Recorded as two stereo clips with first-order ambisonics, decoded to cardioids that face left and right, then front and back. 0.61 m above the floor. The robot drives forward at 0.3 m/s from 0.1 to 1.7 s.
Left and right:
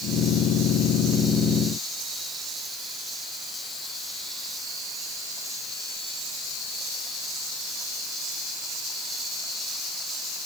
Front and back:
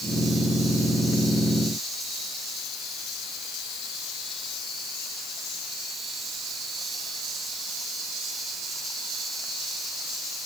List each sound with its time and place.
Only background noise.